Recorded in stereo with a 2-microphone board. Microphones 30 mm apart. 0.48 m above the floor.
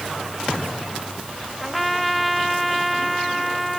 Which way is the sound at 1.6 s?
Centre (ahead or behind).